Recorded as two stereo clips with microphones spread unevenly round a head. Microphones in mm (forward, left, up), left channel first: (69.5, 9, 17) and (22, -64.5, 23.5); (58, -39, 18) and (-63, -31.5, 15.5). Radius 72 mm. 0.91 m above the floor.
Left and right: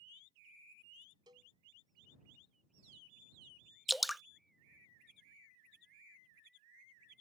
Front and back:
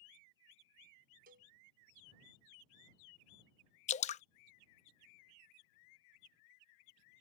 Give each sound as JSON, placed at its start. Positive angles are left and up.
{"t": 1.3, "sound": "a cowbell", "azimuth_deg": 175}
{"t": 3.9, "sound": "dripping", "azimuth_deg": -35}